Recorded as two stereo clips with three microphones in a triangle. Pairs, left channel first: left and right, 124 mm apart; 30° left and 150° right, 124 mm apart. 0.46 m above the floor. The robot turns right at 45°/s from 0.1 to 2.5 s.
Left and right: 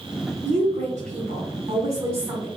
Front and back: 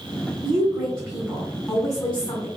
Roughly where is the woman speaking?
Behind right.